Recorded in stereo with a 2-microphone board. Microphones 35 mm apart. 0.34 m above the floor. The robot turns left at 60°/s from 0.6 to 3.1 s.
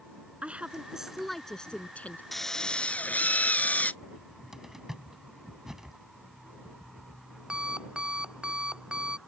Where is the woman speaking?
135° right; by 2.2 s 130° left.